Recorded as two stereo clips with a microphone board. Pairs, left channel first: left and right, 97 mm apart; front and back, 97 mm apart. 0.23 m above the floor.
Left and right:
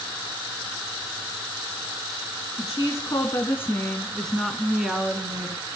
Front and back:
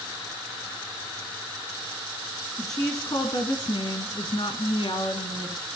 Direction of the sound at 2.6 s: 45° left.